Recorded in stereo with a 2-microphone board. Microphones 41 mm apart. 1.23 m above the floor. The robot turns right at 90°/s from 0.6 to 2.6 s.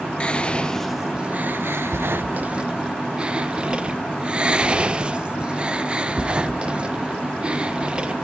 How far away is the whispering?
About 0.6 m.